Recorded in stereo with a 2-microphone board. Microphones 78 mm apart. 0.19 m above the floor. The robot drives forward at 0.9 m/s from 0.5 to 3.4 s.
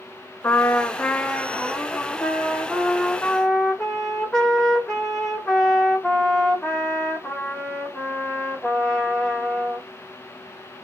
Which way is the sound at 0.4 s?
30° left (ahead or behind).